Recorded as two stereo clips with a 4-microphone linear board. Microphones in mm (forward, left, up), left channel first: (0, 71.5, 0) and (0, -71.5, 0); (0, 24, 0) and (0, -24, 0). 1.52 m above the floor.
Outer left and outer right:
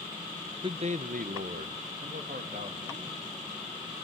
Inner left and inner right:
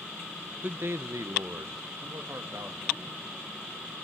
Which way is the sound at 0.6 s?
35° right (ahead or behind).